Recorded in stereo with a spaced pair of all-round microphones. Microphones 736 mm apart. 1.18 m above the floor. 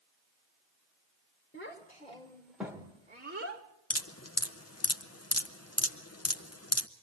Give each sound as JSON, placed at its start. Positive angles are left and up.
{"t": 1.5, "sound": "a child speaking", "side_deg": 15, "distance_m": 2.5}
{"t": 3.9, "sound": "dripping", "side_deg": 20, "distance_m": 0.8}